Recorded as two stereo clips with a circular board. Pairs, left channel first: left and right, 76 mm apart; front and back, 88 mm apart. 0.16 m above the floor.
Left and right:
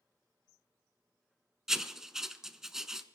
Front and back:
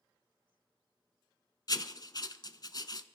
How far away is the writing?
About 0.6 m.